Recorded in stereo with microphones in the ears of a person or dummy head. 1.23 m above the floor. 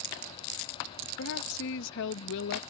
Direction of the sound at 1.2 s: 65° left (ahead or behind).